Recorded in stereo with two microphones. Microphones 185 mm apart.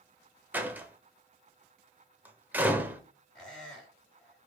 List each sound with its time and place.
0.5 s a door slam: 10° right (ahead or behind), 0.6 m
3.4 s a squeak: 5° left (ahead or behind), 1.5 m